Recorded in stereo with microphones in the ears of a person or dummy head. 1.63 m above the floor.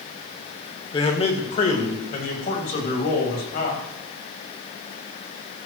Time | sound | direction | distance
0.9 | a man speaking | 30° left (ahead or behind) | 1.7 m